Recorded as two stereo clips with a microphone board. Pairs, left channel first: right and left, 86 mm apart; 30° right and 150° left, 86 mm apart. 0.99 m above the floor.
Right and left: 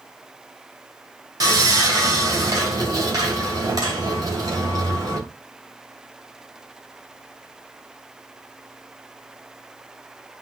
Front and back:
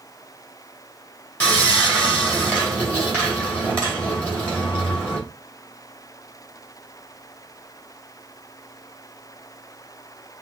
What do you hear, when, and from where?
1.4 s sawing: 45° left, 2 m